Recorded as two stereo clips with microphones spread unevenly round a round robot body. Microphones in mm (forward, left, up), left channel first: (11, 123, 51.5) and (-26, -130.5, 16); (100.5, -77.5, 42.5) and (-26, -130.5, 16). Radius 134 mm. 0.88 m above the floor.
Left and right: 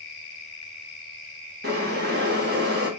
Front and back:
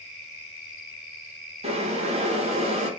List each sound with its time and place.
1.6 s boiling: 135° right, 1.6 m